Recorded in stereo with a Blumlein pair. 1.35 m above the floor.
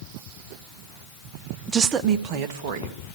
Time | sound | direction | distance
1.7 | a woman speaking | 15° right | 0.7 m